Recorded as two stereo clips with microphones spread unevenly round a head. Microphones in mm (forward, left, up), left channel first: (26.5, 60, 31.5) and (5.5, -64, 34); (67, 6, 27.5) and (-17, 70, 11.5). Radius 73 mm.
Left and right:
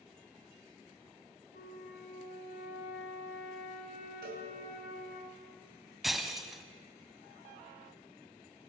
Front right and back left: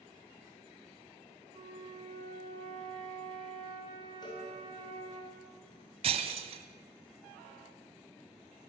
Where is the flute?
105° left, 4.5 m.